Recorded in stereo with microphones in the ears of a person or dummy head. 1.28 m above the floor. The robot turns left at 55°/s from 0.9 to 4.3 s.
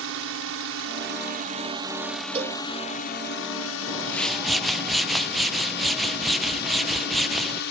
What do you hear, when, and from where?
0.0 s a drone: 110° right; by 7.7 s 65° left
2.4 s a cowbell: 30° right (ahead or behind); by 2.6 s 45° right (ahead or behind)
3.9 s a whoosh: 20° left (ahead or behind); by 7.6 s centre (ahead or behind)